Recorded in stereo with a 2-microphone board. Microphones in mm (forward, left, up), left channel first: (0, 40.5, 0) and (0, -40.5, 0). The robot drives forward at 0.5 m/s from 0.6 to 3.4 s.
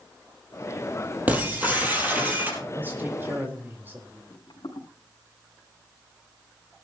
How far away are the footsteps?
About 5 m.